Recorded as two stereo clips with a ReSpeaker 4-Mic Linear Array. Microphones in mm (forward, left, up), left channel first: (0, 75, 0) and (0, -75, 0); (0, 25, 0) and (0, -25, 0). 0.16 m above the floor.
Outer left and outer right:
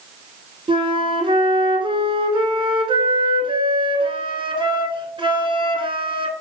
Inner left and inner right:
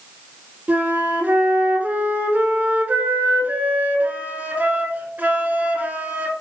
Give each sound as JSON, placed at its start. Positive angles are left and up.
{"t": 0.7, "sound": "a flute", "side_deg": -35, "distance_m": 0.9}